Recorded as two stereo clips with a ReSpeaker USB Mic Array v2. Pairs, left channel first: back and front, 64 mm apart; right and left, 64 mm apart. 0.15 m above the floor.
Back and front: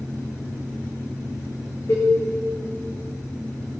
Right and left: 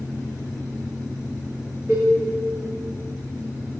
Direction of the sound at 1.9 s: 145° left.